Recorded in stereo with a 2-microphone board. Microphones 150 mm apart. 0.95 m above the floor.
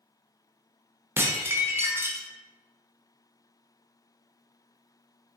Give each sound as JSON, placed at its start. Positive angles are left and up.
{"t": 1.2, "sound": "dishes clattering", "side_deg": -15, "distance_m": 0.5}